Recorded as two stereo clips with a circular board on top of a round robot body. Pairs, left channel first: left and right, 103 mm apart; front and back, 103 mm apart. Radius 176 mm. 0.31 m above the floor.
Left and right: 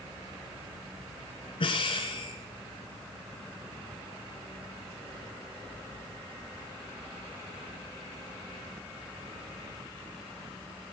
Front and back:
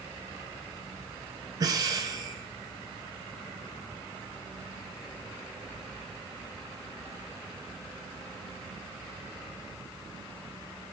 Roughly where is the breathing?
Behind left.